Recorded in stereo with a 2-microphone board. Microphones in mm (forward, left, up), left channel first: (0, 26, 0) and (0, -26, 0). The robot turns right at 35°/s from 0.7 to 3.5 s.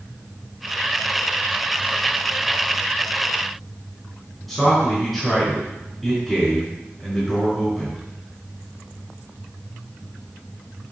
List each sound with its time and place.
4.5 s a man speaking: 5° left (ahead or behind), 5 m